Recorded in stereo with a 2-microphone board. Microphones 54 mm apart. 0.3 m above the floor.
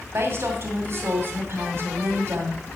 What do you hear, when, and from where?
0.1 s a woman speaking: 50° right (ahead or behind), 2.5 m